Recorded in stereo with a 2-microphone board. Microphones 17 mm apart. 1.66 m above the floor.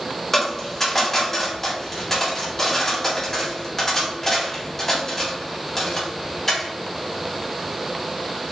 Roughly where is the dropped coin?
Left.